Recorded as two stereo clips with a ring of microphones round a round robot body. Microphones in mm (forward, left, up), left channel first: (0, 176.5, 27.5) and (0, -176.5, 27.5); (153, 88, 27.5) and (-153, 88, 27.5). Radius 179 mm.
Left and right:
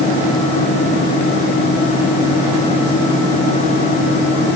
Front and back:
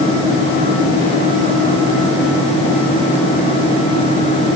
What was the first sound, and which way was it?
Only background noise.